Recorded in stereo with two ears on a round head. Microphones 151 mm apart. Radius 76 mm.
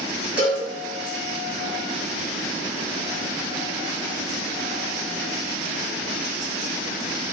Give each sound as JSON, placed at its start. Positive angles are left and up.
{"t": 0.4, "sound": "a cowbell", "side_deg": -10, "distance_m": 3.5}